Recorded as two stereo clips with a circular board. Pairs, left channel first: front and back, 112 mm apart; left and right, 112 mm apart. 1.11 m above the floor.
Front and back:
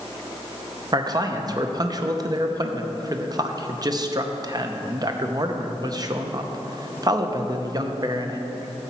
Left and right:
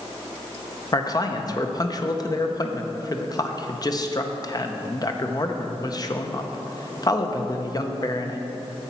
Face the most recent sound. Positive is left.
turn(degrees=135)